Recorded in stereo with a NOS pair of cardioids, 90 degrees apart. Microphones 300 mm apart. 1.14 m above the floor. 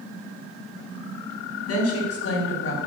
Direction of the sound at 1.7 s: 50° left.